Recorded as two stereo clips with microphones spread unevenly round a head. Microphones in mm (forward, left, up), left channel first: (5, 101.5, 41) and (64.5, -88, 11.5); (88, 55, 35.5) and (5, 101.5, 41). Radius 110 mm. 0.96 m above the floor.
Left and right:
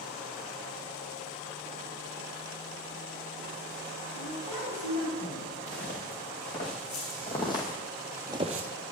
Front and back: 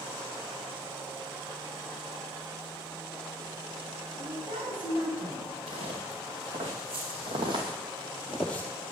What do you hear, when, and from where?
4.1 s a woman speaking: 160° right, 5.5 m; by 5.5 s 150° right, 5.5 m
5.7 s footsteps: 155° left, 4 m; by 8.7 s 80° right, 1.1 m